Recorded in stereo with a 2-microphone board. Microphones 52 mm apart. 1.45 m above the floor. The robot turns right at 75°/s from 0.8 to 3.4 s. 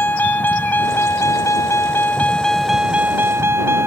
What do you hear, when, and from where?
0.0 s a vehicle: 40° left; by 3.9 s 125° right